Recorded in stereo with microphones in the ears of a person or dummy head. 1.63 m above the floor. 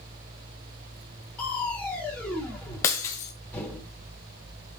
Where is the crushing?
10° left (ahead or behind), 3 m.